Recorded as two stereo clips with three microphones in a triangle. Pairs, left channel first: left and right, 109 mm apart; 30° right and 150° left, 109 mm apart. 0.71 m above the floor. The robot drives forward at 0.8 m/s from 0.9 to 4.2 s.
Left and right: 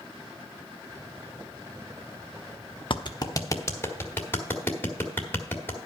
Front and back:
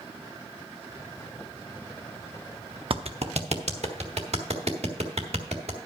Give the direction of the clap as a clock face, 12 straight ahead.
8 o'clock.